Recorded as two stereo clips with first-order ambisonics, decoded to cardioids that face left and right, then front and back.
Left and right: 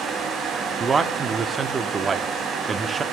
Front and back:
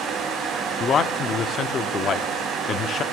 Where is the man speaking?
30° right, 0.8 m.